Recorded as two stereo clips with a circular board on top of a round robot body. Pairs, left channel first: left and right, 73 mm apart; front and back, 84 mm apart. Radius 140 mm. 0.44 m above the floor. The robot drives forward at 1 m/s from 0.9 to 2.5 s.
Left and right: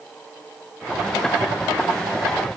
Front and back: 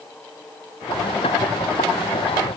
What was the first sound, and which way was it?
Only background noise.